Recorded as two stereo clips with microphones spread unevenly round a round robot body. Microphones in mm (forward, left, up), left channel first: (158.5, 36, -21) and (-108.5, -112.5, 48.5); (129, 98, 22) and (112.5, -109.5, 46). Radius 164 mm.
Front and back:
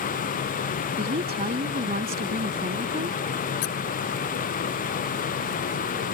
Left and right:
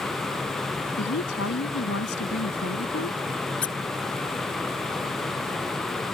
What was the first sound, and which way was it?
A woman speaking, 140° left.